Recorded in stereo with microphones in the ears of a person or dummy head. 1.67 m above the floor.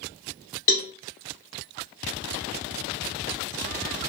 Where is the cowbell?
30° left (ahead or behind), 0.7 m.